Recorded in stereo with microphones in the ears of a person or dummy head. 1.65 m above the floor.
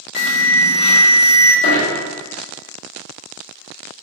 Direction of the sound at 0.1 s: 60° left (ahead or behind).